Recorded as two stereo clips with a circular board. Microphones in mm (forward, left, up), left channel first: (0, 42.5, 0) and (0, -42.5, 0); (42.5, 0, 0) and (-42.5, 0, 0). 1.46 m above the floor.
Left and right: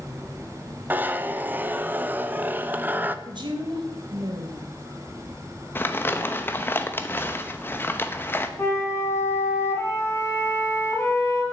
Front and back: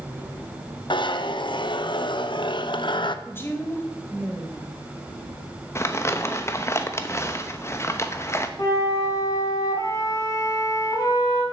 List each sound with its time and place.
0.9 s a zipper: 20° right, 0.6 m
3.2 s a woman speaking: 65° right, 1.9 m
5.8 s crumpling: 40° left, 0.8 m
8.6 s a flute: 35° left, 2.5 m